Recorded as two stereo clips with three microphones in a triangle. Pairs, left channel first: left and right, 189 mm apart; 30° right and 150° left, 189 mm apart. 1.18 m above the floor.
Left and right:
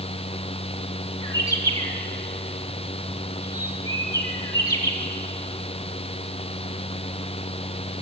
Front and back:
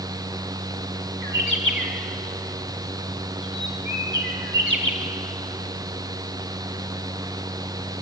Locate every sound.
1.2 s a bird: 160° left, 2.5 m